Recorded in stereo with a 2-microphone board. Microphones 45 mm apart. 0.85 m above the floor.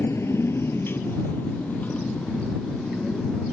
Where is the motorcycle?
85° left; by 3.5 s 20° left (ahead or behind).